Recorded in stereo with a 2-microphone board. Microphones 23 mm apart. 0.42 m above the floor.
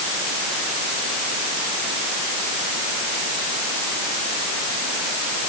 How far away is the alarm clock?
No alarm clock in this recording.